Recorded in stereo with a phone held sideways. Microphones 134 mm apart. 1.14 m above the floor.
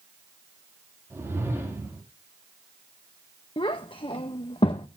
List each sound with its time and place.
1.1 s a whoosh: 20° right (ahead or behind), 2.5 m
3.6 s a child speaking: 40° left (ahead or behind), 0.5 m